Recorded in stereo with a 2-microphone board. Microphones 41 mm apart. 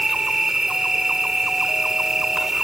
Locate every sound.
0.0 s an insect: 10° right (ahead or behind)